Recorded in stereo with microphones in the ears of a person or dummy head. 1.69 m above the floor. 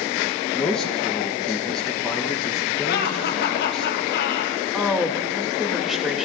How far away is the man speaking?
About 2 m.